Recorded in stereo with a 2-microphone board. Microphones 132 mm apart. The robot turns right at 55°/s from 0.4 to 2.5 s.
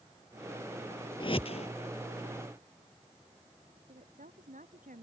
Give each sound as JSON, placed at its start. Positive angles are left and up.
{"t": 1.2, "sound": "a whoosh", "side_deg": 40}
{"t": 3.9, "sound": "a woman speaking", "side_deg": -80}